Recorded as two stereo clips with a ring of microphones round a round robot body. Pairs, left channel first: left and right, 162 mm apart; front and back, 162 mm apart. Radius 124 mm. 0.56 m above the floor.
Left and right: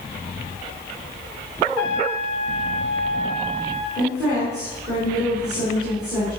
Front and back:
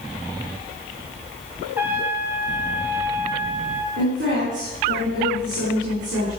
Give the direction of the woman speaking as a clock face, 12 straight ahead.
6 o'clock.